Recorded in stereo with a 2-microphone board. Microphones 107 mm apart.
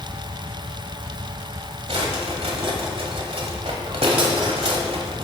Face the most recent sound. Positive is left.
turn(degrees=-60)  # may be behind; listen again after turning